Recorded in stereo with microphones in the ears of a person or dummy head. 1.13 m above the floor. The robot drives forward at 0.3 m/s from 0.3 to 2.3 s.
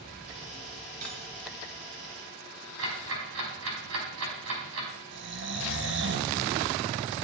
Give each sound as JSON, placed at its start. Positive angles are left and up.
{"t": 1.0, "sound": "cutlery clinking", "side_deg": -45, "distance_m": 4.5}
{"t": 2.8, "sound": "ticking", "side_deg": -85, "distance_m": 4.5}
{"t": 5.1, "sound": "snoring", "side_deg": -55, "distance_m": 1.0}